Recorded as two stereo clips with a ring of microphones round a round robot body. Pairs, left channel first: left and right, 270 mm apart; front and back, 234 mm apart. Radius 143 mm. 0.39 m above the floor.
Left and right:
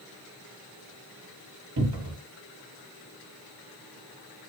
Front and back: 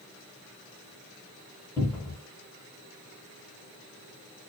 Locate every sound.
1.8 s a cupboard door: 80° right, 1.0 m